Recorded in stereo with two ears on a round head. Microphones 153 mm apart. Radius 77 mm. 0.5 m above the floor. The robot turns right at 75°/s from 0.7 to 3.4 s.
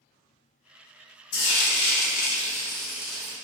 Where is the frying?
65° left, 0.8 m; by 3.4 s 140° right, 0.8 m.